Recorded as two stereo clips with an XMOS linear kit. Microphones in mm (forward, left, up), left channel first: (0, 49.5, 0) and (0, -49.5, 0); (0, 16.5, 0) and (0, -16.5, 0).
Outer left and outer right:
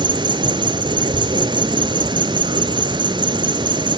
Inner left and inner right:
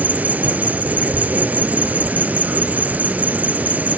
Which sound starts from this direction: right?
An insect, at 0.0 s.